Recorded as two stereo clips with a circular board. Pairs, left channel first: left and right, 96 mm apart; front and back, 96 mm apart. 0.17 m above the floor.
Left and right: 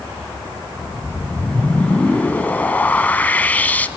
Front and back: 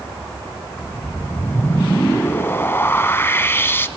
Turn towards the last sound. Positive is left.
turn(degrees=35)